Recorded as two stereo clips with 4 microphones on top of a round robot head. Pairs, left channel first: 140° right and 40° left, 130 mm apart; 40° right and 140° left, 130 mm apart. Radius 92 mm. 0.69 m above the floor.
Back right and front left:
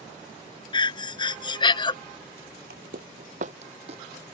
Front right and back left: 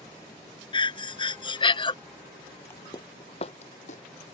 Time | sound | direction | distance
0.7 | breathing | 90° right | ?
2.7 | footsteps | 30° left | ?